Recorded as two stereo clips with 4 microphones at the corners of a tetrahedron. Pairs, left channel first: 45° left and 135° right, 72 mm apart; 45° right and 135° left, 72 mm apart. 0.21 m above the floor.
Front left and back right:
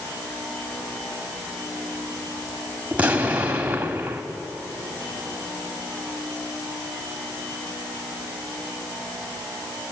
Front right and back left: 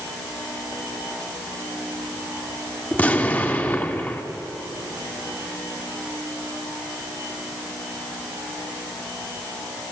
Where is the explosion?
85° right, 1.5 m.